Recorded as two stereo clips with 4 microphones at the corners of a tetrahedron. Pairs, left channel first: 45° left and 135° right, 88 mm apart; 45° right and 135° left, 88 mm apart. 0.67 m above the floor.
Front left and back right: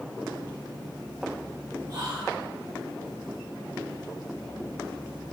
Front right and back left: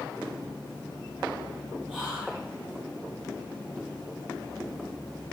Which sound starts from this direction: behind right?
Whispering, at 1.9 s.